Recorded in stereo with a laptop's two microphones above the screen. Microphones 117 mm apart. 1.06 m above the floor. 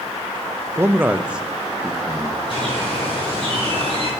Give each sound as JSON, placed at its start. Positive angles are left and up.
{"t": 0.8, "sound": "a man speaking", "side_deg": -25, "distance_m": 0.6}
{"t": 2.5, "sound": "a bird", "side_deg": -45, "distance_m": 4.5}